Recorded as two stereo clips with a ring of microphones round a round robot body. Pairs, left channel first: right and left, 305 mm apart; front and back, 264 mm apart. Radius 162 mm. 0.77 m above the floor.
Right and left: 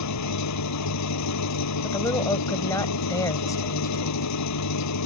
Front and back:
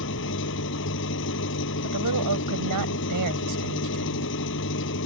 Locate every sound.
0.0 s an engine running: 55° right
1.8 s a woman speaking: 170° right